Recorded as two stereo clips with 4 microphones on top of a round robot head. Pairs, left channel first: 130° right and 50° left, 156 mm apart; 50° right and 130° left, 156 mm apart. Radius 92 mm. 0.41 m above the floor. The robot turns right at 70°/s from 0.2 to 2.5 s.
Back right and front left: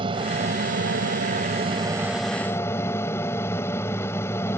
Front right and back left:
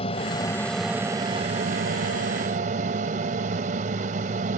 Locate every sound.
0.0 s an aircraft: 5° right; by 4.6 s 160° left